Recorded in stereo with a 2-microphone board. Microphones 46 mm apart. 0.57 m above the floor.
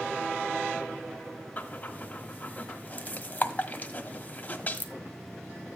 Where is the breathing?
35° left (ahead or behind), 1.5 m.